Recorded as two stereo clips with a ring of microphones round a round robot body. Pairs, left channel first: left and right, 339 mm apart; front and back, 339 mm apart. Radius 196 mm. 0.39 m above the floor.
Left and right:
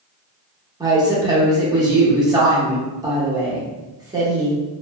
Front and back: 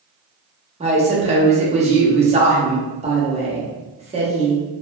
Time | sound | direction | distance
0.8 | a woman speaking | 150° right | 0.8 m